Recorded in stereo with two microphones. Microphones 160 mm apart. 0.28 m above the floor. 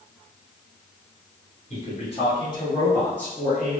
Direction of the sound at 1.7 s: 45° left (ahead or behind).